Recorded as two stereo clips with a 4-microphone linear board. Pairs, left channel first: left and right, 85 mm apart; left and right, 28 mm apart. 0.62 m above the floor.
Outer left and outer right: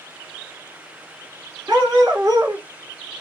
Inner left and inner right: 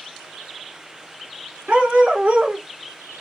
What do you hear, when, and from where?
1.7 s a dog barking: 45° right (ahead or behind), 1.8 m